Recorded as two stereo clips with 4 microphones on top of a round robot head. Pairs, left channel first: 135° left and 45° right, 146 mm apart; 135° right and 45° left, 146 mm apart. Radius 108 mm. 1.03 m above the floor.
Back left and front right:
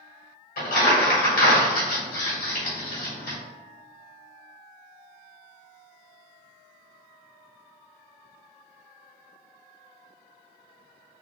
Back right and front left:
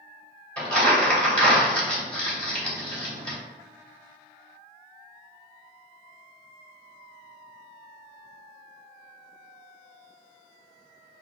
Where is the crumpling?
145° left, 1.9 m.